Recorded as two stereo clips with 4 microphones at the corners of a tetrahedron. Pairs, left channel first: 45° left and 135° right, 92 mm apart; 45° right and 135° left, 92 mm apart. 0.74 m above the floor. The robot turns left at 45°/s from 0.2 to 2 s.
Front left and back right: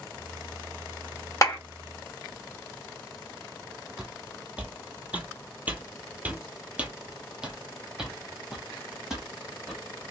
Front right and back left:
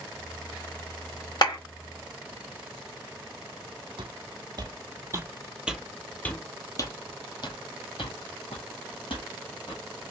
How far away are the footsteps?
About 1.2 m.